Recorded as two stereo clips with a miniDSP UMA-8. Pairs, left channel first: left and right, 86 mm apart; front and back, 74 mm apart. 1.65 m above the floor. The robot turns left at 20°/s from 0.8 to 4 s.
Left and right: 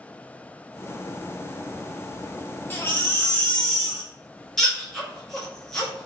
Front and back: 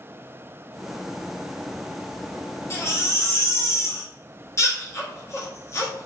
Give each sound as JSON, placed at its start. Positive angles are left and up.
{"t": 2.7, "sound": "a baby crying", "azimuth_deg": 30, "distance_m": 0.8}